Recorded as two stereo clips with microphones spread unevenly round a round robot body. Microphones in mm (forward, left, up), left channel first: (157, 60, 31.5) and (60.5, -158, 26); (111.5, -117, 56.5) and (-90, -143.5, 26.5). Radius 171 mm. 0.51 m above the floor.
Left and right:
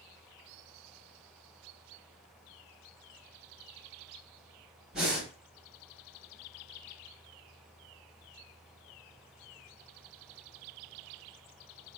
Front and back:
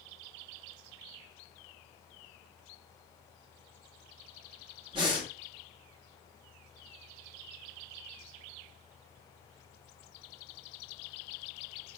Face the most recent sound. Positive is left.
turn(degrees=160)